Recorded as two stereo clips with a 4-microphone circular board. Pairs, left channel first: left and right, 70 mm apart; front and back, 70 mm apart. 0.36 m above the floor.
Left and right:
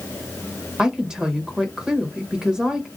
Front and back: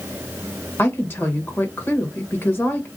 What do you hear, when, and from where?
0.8 s a woman speaking: 20° right, 1.1 m